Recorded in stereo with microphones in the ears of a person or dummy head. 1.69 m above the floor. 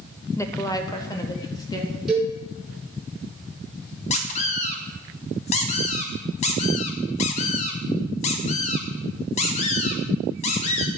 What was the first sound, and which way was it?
A woman speaking, 15° left (ahead or behind).